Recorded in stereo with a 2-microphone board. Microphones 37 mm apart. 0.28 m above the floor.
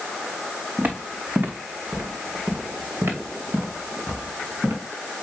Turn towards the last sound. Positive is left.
turn(degrees=-85)